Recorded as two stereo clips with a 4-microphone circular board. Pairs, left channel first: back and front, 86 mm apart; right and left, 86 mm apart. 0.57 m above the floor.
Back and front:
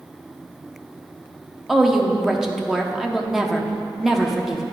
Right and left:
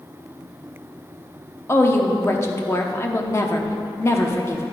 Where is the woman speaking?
80° right, 0.7 m.